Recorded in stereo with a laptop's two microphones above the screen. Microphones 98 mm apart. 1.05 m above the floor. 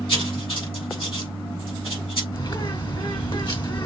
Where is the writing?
65° left (ahead or behind), 5 m.